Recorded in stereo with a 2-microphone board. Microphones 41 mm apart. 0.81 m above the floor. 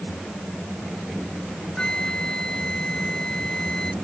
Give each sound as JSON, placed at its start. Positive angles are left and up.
{"t": 1.8, "sound": "a flute", "side_deg": 20}